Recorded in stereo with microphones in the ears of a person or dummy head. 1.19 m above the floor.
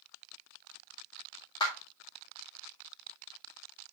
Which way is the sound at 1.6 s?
30° left (ahead or behind).